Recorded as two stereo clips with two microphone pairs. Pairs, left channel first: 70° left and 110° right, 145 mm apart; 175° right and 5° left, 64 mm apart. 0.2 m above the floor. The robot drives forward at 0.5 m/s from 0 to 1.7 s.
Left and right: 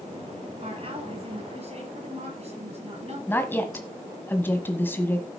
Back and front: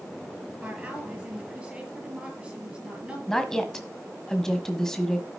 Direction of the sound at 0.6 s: 65° right.